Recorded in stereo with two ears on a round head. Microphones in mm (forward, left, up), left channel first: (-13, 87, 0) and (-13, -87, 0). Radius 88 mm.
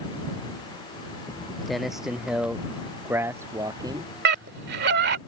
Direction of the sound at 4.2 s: 55° right (ahead or behind).